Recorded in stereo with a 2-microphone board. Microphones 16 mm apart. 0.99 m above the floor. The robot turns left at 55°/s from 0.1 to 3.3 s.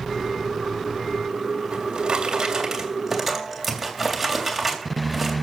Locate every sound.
1.7 s a drawer: 80° right, 3 m; by 5.3 s 170° right, 3 m